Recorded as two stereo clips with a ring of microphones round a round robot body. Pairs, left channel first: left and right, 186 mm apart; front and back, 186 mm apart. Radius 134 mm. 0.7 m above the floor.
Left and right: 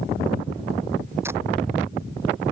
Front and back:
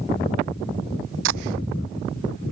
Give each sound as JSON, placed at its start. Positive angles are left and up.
{"t": 1.2, "sound": "tape being pulled", "azimuth_deg": -170}